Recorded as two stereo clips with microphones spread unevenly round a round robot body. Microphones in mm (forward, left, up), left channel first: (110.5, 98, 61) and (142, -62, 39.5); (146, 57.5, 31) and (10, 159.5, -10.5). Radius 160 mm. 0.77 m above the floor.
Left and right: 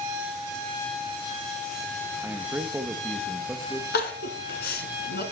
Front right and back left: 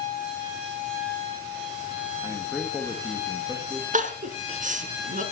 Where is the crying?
95° left, 1.8 m.